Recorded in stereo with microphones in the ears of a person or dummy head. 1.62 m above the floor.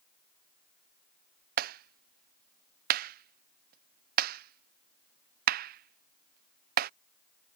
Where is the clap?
55° right (ahead or behind).